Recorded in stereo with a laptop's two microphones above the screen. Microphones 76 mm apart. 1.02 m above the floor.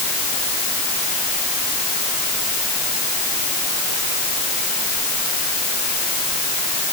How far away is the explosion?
I don't hear an explosion.